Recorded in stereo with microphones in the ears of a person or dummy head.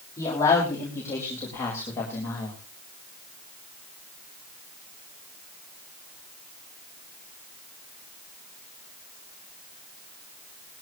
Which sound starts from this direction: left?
A man speaking, at 0.2 s.